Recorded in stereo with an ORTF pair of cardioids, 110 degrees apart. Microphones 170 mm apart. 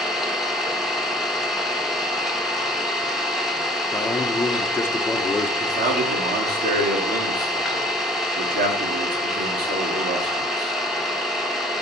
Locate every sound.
0.0 s an engine running: straight ahead, 1.7 m
3.9 s a man speaking: 15° left, 1.2 m
5.6 s a man speaking: 65° right, 2.5 m